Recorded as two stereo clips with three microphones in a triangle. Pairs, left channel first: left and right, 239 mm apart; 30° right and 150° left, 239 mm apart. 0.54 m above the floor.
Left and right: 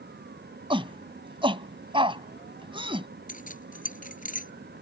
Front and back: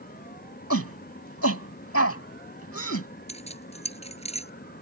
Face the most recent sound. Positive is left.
turn(degrees=35)